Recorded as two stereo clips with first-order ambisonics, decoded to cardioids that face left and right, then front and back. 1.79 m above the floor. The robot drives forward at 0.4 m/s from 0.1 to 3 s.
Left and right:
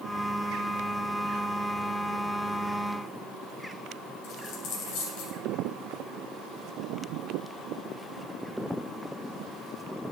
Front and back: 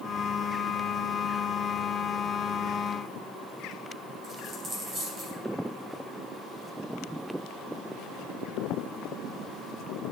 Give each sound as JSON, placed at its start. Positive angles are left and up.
{"t": 4.2, "sound": "a dropped coin", "azimuth_deg": 115, "distance_m": 3.0}